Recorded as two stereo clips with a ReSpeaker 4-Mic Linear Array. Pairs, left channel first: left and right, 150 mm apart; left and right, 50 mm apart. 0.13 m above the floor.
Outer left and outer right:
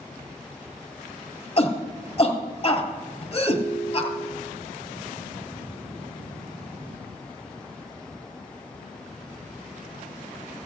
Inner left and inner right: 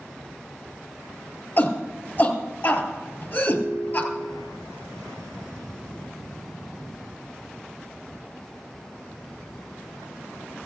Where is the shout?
40° left (ahead or behind), 3 m.